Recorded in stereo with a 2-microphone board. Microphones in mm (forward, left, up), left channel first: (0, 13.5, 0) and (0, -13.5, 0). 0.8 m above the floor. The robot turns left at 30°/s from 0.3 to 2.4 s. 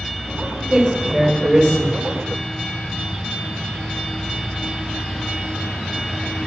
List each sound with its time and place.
0.7 s a man speaking: 25° right, 0.9 m; by 1.9 s 60° right, 0.9 m